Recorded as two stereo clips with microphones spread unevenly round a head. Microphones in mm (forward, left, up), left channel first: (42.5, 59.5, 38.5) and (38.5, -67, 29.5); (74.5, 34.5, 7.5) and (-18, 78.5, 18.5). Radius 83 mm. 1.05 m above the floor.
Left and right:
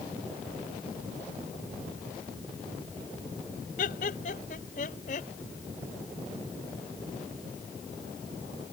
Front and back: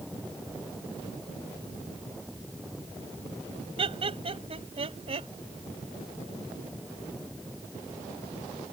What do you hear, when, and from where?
3.8 s laughter: 125° left; by 5.3 s 130° left